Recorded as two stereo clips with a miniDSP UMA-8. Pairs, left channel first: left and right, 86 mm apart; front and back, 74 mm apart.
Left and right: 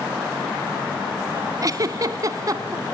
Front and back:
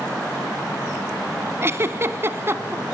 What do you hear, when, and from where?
1.6 s a giggle: 130° right, 0.8 m